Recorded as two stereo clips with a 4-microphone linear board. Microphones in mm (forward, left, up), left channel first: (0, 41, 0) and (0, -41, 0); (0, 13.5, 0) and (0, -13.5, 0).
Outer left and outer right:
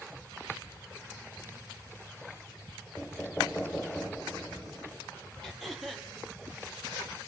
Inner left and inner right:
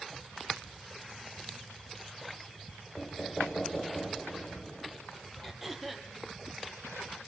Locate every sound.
3.0 s knocking: 15° left (ahead or behind), 1.8 m
5.4 s throat clearing: centre (ahead or behind), 4.5 m